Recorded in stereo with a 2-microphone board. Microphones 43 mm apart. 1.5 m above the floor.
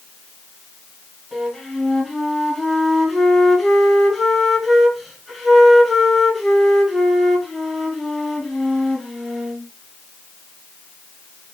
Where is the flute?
5° right (ahead or behind), 3.5 m.